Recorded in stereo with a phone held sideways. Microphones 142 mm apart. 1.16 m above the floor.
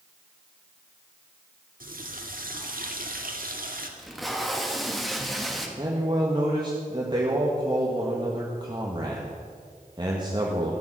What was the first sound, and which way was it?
A running tap, 75° right (ahead or behind).